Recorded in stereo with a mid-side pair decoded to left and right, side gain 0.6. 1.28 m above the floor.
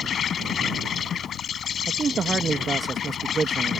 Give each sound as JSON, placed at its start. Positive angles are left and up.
{"t": 0.0, "sound": "an insect", "azimuth_deg": 45}
{"t": 1.9, "sound": "a man speaking", "azimuth_deg": -25}